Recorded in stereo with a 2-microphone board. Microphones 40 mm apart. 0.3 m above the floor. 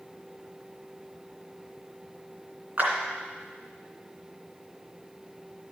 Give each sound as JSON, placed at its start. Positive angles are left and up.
{"t": 2.8, "sound": "a clap", "side_deg": -50, "distance_m": 2.5}